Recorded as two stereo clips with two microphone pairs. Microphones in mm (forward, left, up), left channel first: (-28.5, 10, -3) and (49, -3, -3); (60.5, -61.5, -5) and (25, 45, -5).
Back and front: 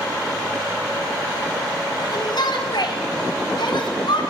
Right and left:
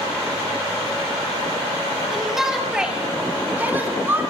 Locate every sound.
2.1 s a shout: 160° right, 4 m; by 4.2 s straight behind, 4.5 m